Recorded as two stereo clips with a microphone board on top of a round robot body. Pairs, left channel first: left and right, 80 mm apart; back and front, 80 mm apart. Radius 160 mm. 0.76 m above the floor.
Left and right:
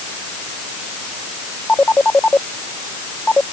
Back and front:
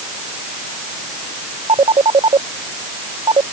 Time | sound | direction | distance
1.7 | a phone ringing | 15° left | ?